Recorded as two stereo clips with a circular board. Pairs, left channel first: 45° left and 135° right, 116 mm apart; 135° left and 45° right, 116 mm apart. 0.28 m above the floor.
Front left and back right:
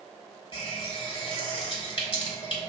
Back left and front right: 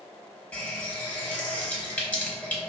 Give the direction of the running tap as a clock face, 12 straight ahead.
10 o'clock.